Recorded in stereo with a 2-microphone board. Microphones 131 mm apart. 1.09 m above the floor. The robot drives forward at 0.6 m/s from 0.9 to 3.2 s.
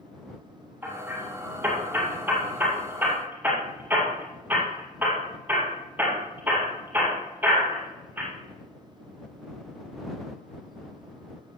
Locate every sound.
0.8 s hammering: 15° right (ahead or behind), 6 m